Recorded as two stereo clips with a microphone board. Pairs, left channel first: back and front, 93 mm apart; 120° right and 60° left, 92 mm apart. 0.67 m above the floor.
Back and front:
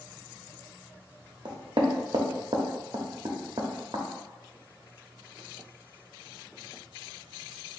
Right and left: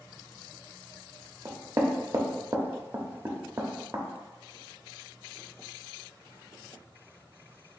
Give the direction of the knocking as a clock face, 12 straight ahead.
12 o'clock.